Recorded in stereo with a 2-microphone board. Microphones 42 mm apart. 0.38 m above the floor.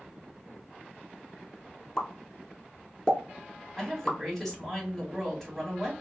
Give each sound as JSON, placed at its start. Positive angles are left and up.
{"t": 2.0, "sound": "a pop", "side_deg": 15, "distance_m": 0.7}
{"t": 3.8, "sound": "a woman speaking", "side_deg": 10, "distance_m": 1.7}